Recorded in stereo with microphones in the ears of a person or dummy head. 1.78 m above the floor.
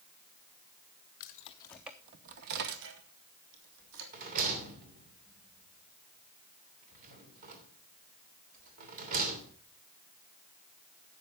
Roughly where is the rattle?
Right.